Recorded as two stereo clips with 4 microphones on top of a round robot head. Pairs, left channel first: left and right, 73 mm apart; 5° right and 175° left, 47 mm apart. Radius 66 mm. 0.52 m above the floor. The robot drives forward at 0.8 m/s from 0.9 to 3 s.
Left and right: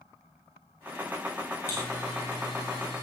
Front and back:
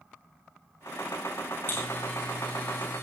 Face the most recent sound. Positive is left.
turn(degrees=40)